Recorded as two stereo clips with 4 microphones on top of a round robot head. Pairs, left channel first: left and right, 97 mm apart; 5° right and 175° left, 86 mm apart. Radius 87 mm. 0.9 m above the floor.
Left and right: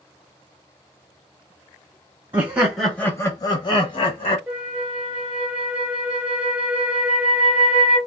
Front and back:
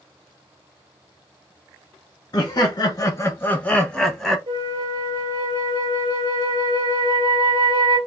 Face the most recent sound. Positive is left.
turn(degrees=-170)